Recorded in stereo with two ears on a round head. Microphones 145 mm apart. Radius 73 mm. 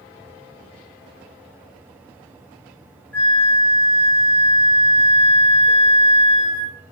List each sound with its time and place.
3.1 s a flute: 10° left (ahead or behind), 0.7 m